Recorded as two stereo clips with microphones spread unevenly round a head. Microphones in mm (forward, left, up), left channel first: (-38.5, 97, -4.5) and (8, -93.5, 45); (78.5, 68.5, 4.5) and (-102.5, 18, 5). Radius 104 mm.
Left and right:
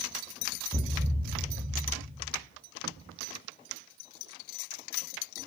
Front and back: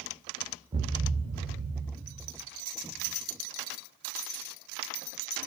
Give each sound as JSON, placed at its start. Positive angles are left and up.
{"t": 0.7, "sound": "a thud", "azimuth_deg": -120, "distance_m": 1.2}